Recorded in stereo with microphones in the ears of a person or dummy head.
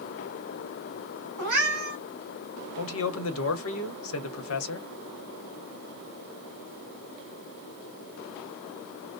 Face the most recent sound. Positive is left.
turn(degrees=80)